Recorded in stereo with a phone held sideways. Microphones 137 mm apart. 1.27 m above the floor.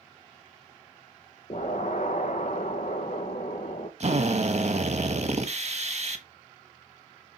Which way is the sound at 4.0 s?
55° right (ahead or behind).